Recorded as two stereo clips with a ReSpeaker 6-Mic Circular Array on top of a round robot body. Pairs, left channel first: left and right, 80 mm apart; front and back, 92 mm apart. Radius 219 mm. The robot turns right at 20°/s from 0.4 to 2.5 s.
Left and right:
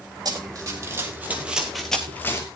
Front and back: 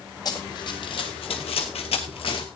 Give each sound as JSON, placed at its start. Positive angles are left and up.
{"t": 0.2, "sound": "running footsteps", "azimuth_deg": -50, "distance_m": 1.9}